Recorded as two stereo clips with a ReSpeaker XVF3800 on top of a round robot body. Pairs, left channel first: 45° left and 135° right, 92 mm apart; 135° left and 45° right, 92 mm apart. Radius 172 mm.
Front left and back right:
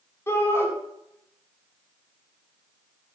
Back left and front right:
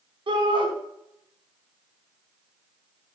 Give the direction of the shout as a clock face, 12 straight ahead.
1 o'clock.